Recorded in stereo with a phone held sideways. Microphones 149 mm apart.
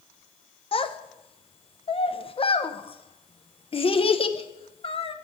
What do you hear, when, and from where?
0.7 s a child speaking: 40° left (ahead or behind), 0.7 m